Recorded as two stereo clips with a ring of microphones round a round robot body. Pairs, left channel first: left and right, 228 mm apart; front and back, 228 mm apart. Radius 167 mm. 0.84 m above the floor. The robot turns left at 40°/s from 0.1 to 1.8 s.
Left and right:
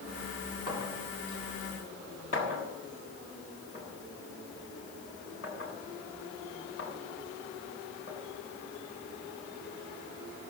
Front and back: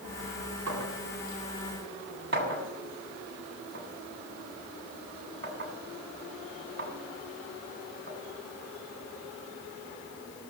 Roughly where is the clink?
Behind.